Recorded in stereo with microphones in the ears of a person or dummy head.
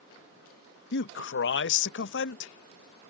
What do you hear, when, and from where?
0.9 s a man speaking: 60° left (ahead or behind)